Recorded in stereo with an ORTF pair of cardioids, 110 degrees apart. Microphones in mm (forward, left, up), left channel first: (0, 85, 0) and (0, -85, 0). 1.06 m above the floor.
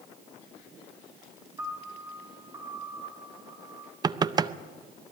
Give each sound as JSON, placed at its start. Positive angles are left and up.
{"t": 1.6, "sound": "a piano", "azimuth_deg": -20, "distance_m": 3.5}
{"t": 4.0, "sound": "knocking", "azimuth_deg": -20, "distance_m": 0.6}